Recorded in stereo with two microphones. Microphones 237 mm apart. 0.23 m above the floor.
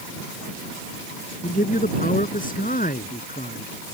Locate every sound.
1.4 s a man speaking: 35° left (ahead or behind)